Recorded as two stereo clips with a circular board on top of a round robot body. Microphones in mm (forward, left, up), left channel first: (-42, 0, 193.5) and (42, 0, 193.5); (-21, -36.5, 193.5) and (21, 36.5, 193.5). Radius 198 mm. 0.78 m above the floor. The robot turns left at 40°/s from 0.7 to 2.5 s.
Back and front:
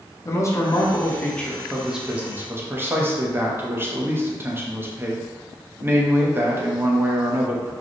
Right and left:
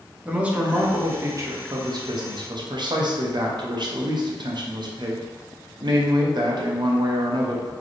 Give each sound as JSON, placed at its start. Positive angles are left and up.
{"t": 0.2, "sound": "a man speaking", "azimuth_deg": 130, "distance_m": 1.1}